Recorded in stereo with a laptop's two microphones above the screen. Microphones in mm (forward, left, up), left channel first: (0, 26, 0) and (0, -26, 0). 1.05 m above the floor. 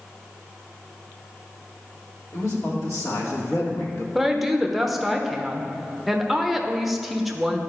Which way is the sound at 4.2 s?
Centre (ahead or behind).